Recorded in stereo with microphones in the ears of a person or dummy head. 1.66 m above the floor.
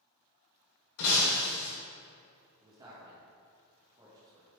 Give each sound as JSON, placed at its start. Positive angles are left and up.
{"t": 1.0, "sound": "breaking glass", "side_deg": 50, "distance_m": 2.5}
{"t": 2.6, "sound": "a man speaking", "side_deg": -25, "distance_m": 1.8}